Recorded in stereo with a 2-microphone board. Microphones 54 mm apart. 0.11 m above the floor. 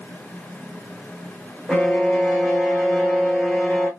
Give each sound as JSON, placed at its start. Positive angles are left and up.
{"t": 1.7, "sound": "a violin", "side_deg": 5, "distance_m": 1.2}